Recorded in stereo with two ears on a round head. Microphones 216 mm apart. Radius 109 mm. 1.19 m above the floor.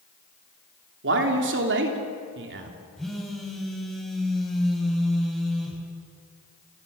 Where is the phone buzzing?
Centre (ahead or behind), 5 m.